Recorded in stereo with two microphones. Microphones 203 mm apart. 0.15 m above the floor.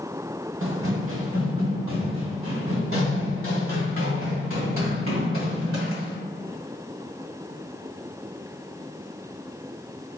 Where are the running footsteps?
80° right, 0.9 m.